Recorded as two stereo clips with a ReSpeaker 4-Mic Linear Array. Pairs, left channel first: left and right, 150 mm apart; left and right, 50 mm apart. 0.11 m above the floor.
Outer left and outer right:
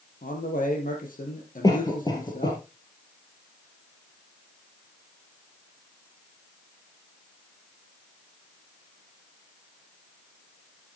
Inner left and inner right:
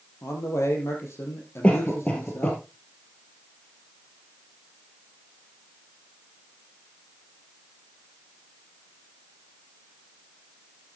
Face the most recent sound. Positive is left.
turn(degrees=25)  # may be behind; listen again after turning